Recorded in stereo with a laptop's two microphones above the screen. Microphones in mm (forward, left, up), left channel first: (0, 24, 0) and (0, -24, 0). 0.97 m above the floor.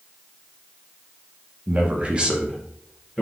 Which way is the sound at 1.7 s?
30° right (ahead or behind).